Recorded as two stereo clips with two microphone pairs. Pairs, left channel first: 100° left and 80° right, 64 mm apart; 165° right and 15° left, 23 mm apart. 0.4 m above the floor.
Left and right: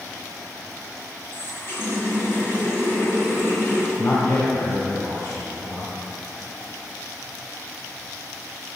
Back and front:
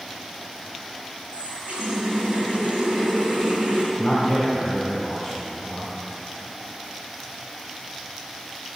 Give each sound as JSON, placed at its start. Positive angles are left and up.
{"t": 1.3, "sound": "a running tap", "azimuth_deg": 50, "distance_m": 2.5}
{"t": 4.0, "sound": "a man speaking", "azimuth_deg": 130, "distance_m": 1.9}